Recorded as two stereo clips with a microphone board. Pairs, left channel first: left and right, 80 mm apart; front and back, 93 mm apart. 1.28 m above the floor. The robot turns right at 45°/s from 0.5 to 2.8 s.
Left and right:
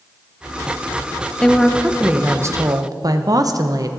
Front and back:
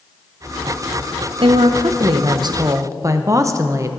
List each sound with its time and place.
1.4 s a woman speaking: 170° left, 0.7 m; by 3.9 s 125° right, 0.7 m